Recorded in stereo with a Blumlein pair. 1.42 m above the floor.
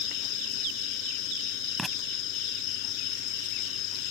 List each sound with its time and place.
0.0 s an insect: 40° left
1.8 s writing: 5° right